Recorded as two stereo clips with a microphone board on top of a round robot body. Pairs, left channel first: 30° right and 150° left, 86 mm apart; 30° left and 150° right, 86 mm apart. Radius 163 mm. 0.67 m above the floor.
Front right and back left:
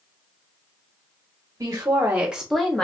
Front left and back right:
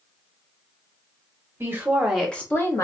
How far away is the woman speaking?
About 1.2 m.